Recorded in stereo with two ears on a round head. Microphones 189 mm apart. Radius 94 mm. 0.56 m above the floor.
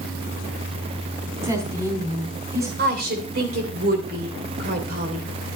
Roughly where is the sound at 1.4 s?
Centre.